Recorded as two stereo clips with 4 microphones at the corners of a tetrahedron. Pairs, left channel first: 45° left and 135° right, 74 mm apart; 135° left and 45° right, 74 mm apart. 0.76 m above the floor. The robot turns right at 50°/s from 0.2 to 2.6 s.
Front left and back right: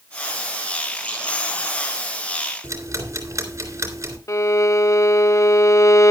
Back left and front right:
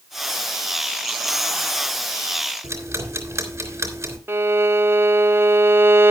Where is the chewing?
I don't hear chewing.